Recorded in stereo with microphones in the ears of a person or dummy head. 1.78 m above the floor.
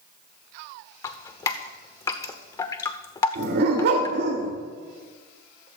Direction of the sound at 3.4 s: 55° right (ahead or behind).